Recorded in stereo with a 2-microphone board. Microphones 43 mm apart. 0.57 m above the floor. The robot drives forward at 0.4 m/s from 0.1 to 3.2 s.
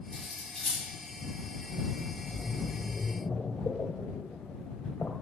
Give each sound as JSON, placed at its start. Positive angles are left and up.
{"t": 0.1, "sound": "cutlery clinking", "side_deg": 5, "distance_m": 4.5}
{"t": 2.1, "sound": "a splash", "side_deg": 35, "distance_m": 1.9}